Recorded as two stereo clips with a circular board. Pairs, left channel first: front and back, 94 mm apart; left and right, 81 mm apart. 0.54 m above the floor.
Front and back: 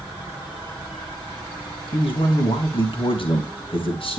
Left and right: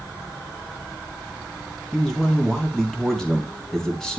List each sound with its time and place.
1.9 s a man speaking: 10° left, 3.5 m